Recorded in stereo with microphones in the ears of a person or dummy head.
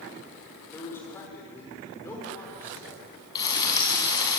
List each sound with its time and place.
0.7 s a man speaking: 15° left (ahead or behind), 6 m
3.4 s frying: 20° left (ahead or behind), 4 m